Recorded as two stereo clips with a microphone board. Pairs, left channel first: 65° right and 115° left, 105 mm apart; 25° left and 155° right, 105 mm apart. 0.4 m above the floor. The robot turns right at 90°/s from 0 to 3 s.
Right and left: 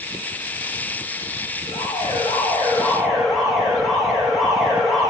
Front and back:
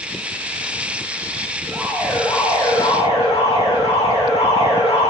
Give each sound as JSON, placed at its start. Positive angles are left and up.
{"t": 1.7, "sound": "an alarm", "azimuth_deg": -95, "distance_m": 9.5}